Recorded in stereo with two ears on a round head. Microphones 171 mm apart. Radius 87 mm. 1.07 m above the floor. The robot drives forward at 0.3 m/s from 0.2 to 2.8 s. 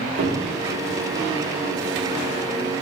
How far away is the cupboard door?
About 0.8 m.